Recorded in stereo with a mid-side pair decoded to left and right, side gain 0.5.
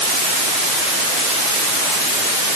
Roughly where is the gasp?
No gasp in this recording.